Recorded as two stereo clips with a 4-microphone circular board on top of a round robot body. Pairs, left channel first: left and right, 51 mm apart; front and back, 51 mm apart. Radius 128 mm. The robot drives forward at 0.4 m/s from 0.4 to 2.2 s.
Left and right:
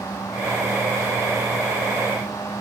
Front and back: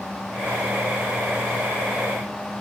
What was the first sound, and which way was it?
Only background noise.